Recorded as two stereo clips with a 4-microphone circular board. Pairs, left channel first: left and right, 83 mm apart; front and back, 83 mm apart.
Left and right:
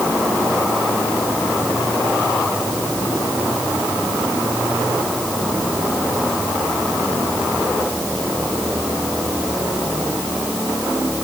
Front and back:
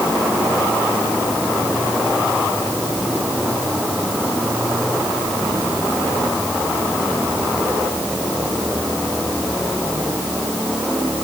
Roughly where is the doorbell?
I don't hear a doorbell.